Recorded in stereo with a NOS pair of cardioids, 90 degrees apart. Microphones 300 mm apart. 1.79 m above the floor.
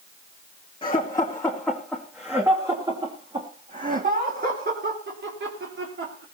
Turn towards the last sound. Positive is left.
turn(degrees=-45)